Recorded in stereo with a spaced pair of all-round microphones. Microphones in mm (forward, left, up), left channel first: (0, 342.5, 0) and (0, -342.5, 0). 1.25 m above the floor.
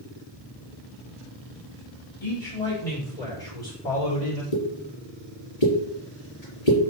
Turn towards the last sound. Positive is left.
turn(degrees=65)  # may be behind; listen again after turning